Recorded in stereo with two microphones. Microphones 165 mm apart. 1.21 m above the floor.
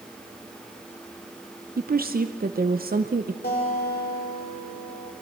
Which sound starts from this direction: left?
A guitar, at 3.4 s.